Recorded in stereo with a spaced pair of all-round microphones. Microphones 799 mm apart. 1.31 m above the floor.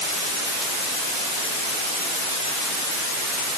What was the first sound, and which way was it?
Only background noise.